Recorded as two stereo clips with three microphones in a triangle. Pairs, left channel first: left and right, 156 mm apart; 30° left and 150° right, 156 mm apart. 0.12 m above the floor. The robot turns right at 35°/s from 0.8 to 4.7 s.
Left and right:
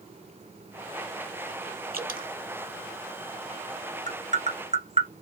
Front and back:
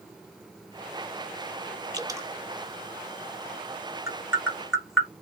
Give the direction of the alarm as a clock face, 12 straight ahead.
No alarm in this recording.